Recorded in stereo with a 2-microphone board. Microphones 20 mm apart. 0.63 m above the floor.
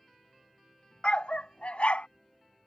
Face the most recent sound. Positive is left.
turn(degrees=70)  # may be behind; listen again after turning